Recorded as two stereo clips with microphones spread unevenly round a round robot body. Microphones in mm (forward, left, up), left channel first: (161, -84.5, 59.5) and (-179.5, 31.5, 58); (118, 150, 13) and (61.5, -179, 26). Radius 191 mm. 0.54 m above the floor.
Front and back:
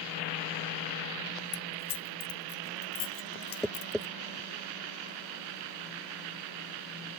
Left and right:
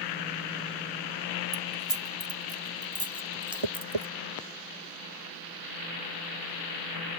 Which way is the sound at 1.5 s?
20° right.